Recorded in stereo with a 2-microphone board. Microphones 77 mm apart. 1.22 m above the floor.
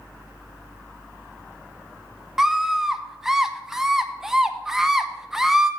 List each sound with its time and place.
2.4 s a scream: 5° right (ahead or behind), 0.6 m